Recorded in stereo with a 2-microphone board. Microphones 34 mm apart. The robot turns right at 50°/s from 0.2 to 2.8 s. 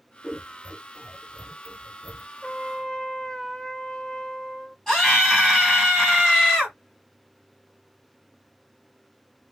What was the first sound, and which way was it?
Scissors, 30° left (ahead or behind).